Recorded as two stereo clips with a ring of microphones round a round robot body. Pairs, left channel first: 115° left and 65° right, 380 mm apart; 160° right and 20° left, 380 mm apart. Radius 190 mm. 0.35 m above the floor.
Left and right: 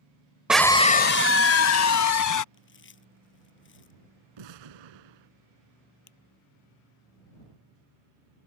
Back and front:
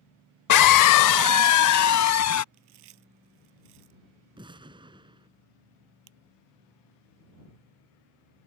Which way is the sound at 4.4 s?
55° right.